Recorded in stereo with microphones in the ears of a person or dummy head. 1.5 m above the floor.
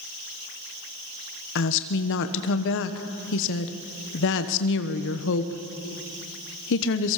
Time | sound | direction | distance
1.6 | a woman speaking | 65° left (ahead or behind) | 1.2 m